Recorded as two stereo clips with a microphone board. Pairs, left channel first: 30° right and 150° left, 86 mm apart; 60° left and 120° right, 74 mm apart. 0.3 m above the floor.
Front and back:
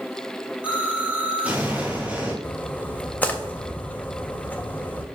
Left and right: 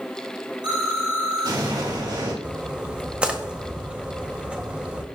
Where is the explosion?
135° right, 4 m.